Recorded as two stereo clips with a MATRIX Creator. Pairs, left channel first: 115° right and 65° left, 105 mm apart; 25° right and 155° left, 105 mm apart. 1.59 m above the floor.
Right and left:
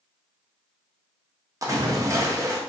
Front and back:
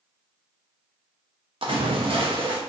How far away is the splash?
About 0.5 m.